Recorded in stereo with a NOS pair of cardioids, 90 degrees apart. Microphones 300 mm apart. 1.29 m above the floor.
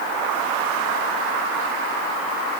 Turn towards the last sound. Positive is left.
No sound to turn to.